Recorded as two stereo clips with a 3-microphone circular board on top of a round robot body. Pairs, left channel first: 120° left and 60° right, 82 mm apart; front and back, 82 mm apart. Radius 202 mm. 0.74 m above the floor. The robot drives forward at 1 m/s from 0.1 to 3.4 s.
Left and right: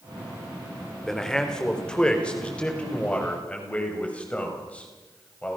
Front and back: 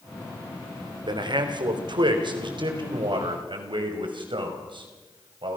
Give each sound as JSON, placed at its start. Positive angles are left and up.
{"t": 1.1, "sound": "a man speaking", "azimuth_deg": -155, "distance_m": 3.0}